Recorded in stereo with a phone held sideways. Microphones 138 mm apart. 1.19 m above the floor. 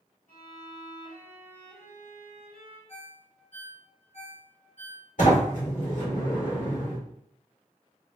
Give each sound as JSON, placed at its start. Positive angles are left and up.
{"t": 0.3, "sound": "a violin", "side_deg": 75, "distance_m": 1.9}
{"t": 2.9, "sound": "a ringtone", "side_deg": 55, "distance_m": 0.9}
{"t": 5.2, "sound": "a sliding door", "side_deg": 70, "distance_m": 1.4}